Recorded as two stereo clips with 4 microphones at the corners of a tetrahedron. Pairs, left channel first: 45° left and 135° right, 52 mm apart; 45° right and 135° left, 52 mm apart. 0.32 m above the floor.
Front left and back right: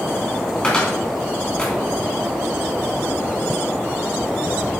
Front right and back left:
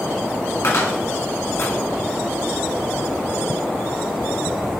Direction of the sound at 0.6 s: 25° right.